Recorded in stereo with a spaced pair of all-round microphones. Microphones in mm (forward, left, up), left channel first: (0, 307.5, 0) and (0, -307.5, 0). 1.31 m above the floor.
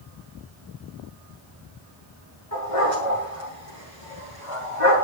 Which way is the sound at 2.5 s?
60° left (ahead or behind).